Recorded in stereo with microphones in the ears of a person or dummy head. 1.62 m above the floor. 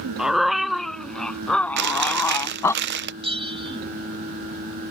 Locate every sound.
0.2 s a dog barking: centre (ahead or behind); by 2.8 s 15° left (ahead or behind)
1.8 s chewing: 55° right (ahead or behind)
3.2 s a bell: 25° right (ahead or behind)